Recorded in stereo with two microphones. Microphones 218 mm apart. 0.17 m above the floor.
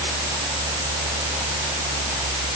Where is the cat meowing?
No cat meowing in this recording.